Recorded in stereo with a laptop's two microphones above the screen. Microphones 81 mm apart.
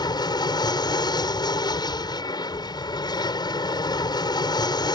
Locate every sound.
0.0 s an aircraft: 65° left (ahead or behind)